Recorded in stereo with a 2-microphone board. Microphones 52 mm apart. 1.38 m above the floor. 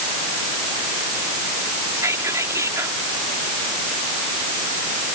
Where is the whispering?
80° right.